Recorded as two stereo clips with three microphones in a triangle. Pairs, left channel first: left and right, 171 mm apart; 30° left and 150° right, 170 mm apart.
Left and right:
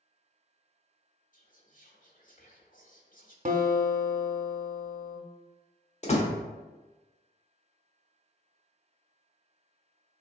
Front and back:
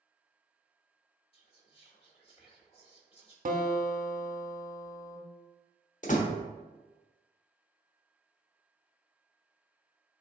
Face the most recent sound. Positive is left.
turn(degrees=55)